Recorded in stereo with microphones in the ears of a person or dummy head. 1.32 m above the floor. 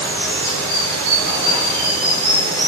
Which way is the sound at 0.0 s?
15° left (ahead or behind).